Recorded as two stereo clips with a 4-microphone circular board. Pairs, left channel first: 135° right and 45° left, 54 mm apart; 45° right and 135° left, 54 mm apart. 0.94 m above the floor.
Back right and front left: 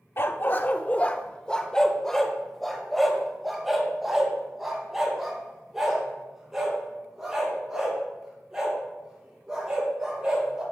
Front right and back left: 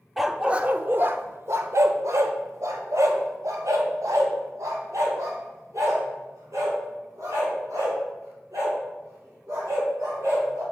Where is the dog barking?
140° right, 0.6 m; by 10.6 s 125° left, 5.5 m.